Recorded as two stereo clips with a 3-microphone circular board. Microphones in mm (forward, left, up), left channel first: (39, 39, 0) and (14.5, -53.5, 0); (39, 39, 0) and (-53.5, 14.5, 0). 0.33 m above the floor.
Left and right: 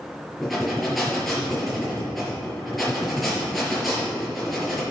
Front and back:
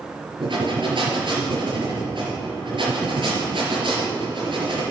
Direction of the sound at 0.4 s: 165° left.